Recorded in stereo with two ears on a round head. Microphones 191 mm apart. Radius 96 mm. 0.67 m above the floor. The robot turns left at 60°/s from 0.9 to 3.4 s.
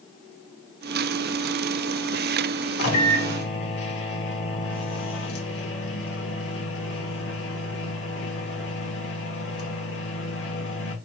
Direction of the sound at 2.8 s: 95° left.